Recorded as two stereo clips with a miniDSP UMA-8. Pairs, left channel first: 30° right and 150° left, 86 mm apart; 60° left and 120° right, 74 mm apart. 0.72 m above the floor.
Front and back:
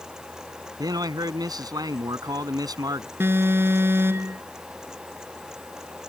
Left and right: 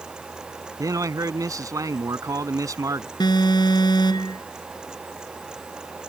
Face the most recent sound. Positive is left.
turn(degrees=85)